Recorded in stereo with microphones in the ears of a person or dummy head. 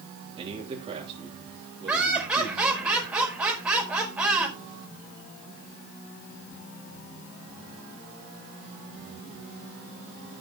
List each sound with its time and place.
0.4 s a man speaking: 35° right (ahead or behind), 2.5 m
1.9 s laughter: 10° right (ahead or behind), 5 m